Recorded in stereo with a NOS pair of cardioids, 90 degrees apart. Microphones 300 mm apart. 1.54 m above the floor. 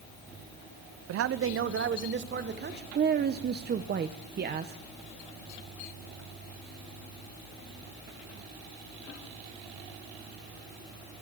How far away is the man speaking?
About 0.7 m.